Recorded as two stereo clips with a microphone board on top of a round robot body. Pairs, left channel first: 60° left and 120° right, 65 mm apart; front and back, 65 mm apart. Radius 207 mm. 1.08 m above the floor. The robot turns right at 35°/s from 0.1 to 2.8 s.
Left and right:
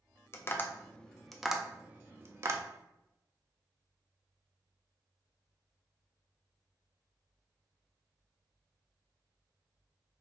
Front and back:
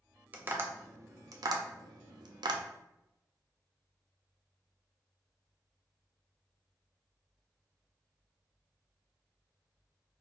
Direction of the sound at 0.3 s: 115° left.